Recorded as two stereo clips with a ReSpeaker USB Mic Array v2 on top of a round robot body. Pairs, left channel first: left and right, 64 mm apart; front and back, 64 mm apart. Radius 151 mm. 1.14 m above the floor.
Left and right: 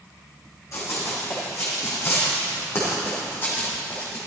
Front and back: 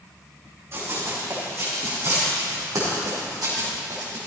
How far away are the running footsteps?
About 4.5 m.